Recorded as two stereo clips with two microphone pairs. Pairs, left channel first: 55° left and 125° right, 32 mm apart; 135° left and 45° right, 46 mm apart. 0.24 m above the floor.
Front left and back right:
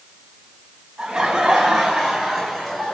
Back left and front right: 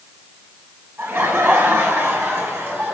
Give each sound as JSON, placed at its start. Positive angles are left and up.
{"t": 1.0, "sound": "laughter", "azimuth_deg": -55, "distance_m": 4.0}